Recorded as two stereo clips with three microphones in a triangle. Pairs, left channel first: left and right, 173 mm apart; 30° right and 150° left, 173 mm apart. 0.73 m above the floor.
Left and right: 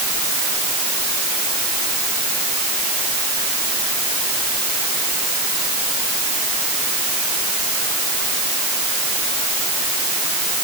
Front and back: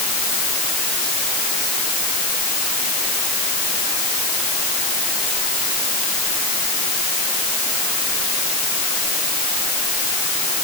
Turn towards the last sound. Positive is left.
No sound to turn to.